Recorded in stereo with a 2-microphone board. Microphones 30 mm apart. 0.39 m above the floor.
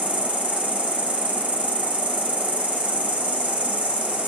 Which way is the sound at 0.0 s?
65° right (ahead or behind).